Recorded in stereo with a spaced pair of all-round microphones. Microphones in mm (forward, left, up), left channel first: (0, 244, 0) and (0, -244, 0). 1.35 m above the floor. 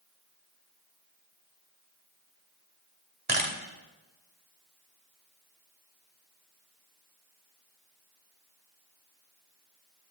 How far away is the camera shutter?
About 2 m.